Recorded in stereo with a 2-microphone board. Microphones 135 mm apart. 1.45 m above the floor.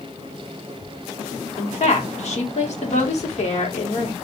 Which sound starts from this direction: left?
A woman speaking, at 1.6 s.